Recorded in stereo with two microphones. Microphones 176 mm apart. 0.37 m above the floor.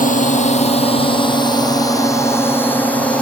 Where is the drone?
50° left (ahead or behind); by 3.2 s 5° left (ahead or behind).